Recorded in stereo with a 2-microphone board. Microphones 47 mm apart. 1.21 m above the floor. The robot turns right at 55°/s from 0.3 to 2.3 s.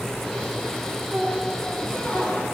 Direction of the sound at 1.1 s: 15° right.